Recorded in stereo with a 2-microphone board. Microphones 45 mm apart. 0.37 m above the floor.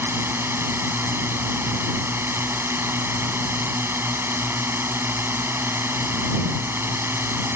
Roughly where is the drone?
Right.